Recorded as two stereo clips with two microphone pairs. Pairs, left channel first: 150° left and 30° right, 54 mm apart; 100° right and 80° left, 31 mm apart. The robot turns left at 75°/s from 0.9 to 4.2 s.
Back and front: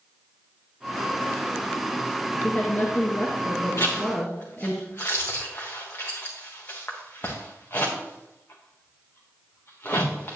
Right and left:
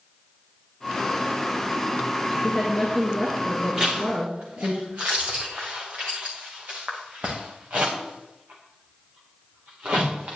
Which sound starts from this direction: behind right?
A woman speaking, at 2.4 s.